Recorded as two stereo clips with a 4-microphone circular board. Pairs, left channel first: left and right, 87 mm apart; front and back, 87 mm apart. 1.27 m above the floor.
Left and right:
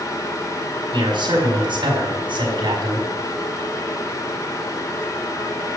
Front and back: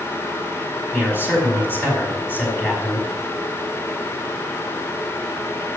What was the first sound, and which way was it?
A man speaking, 60° right.